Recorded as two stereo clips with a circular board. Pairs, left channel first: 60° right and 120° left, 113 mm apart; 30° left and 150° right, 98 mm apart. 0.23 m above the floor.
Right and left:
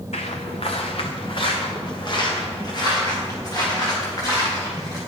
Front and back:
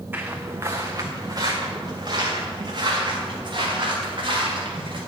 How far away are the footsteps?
About 1.1 m.